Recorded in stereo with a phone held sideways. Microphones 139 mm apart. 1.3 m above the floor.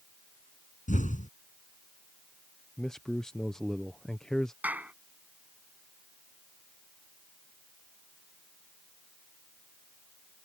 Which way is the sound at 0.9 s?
70° left (ahead or behind).